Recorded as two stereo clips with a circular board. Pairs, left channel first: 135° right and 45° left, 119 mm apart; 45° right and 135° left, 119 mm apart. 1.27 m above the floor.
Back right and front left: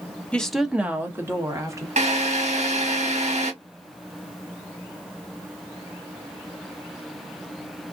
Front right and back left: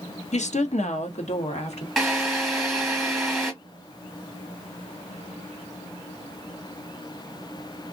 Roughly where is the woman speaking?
Ahead right.